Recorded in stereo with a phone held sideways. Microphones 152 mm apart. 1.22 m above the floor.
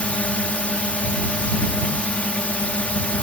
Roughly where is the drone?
Centre.